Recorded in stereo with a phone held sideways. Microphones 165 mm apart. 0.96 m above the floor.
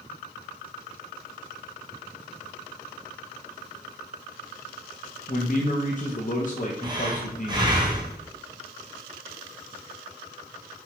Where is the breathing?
25° right (ahead or behind), 0.7 m.